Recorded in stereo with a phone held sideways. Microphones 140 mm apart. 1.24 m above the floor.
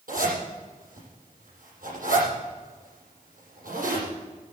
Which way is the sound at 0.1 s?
75° right (ahead or behind).